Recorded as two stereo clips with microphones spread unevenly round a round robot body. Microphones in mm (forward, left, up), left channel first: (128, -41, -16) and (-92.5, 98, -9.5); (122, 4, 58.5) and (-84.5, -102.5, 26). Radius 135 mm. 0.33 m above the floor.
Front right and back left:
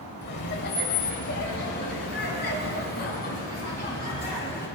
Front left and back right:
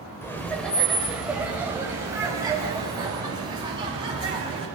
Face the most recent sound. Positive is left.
turn(degrees=-85)